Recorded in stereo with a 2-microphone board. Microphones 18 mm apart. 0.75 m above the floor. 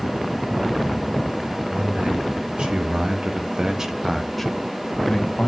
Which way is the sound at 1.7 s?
65° right (ahead or behind).